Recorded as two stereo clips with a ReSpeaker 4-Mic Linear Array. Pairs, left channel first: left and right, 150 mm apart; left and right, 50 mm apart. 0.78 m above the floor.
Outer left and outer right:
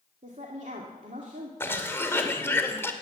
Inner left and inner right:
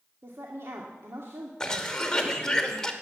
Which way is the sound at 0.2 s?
60° right (ahead or behind).